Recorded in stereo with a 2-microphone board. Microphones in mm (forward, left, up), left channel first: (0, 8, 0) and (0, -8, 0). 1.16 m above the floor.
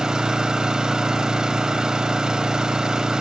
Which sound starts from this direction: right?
An engine running, at 0.0 s.